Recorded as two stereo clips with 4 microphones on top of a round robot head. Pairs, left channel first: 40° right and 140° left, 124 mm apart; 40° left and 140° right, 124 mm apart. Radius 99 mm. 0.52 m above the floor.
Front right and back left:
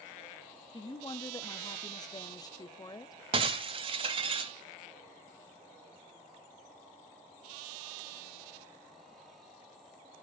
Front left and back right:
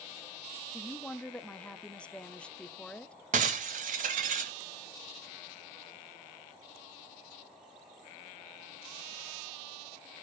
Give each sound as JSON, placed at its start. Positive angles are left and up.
{"t": 0.7, "sound": "a woman speaking", "azimuth_deg": -35, "distance_m": 0.8}
{"t": 3.3, "sound": "breaking glass", "azimuth_deg": -170, "distance_m": 0.6}